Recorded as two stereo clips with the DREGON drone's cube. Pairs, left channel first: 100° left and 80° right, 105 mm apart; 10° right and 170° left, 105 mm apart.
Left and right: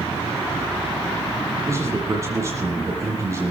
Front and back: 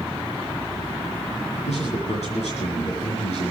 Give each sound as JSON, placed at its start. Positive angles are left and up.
{"t": 1.7, "sound": "a man speaking", "azimuth_deg": -20, "distance_m": 7.5}